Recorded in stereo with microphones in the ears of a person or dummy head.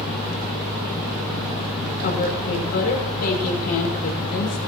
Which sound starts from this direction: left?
A woman speaking, at 2.0 s.